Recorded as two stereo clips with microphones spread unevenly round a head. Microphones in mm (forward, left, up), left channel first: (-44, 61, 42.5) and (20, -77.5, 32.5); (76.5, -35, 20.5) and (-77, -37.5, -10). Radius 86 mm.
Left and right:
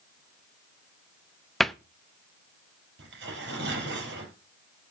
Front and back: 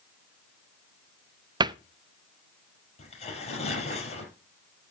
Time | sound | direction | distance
1.6 | a cupboard door | 155° right | 0.6 m
3.0 | tearing paper | 45° right | 4.5 m